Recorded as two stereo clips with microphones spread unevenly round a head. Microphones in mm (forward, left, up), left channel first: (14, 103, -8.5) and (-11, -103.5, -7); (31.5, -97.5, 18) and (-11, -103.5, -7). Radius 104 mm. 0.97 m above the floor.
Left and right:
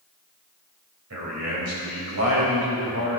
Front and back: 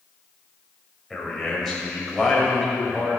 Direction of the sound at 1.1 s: 75° right.